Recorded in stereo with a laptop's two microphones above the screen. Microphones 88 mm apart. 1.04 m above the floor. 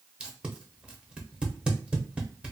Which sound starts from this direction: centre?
Tape being pulled, at 0.2 s.